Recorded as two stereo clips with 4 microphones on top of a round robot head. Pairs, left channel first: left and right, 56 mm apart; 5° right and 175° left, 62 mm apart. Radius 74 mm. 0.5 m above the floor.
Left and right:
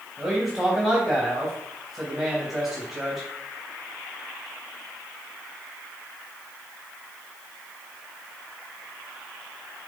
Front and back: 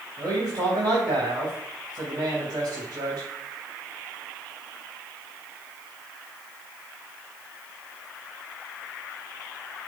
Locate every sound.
0.2 s a man speaking: 170° right, 3 m